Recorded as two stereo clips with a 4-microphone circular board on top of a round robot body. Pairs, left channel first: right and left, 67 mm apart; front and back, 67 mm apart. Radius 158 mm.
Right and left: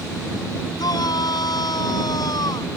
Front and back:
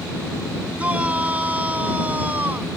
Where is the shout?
110° right.